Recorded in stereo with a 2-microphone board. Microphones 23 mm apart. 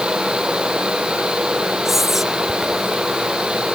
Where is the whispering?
10° right (ahead or behind).